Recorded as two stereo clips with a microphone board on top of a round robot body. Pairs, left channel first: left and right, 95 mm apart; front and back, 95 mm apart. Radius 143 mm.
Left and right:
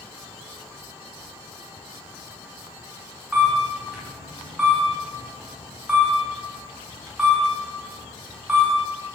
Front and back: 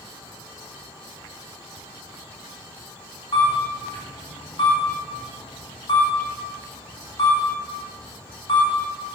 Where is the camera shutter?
5° right, 3 m.